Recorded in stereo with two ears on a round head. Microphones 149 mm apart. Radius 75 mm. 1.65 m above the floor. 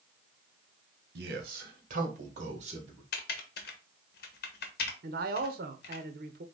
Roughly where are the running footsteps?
No running footsteps in this recording.